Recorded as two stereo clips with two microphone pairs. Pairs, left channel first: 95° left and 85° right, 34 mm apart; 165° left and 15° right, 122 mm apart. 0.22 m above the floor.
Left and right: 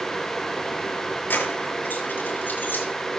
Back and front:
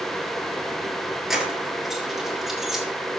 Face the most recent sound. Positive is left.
turn(degrees=75)